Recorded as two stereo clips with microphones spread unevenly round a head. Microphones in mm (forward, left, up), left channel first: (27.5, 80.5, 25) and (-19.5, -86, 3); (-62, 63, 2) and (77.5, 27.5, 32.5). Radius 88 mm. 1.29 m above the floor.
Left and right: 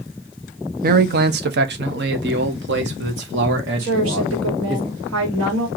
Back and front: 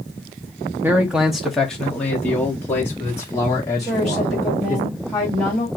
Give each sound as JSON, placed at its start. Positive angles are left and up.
{"t": 0.8, "sound": "a man speaking", "azimuth_deg": -100, "distance_m": 0.7}
{"t": 3.8, "sound": "a woman speaking", "azimuth_deg": -105, "distance_m": 2.5}